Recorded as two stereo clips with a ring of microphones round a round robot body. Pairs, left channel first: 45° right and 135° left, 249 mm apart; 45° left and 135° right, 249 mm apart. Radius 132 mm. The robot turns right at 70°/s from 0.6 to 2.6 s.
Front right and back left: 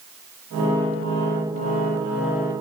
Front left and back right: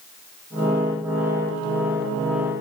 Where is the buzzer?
I don't hear a buzzer.